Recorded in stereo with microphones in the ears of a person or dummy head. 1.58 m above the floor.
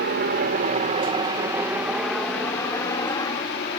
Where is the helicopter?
55° right (ahead or behind); by 3.8 s 25° left (ahead or behind).